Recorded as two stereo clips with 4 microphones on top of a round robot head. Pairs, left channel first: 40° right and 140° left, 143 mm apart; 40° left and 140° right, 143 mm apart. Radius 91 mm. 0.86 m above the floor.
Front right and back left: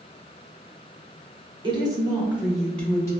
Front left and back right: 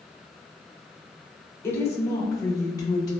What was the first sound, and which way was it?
A woman speaking, 105° left.